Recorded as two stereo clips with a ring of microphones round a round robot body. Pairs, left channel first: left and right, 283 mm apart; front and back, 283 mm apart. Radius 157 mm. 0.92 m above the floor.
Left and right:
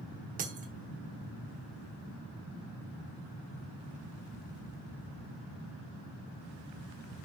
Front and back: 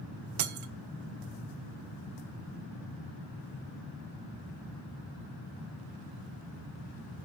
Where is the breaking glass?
155° right, 1.1 m.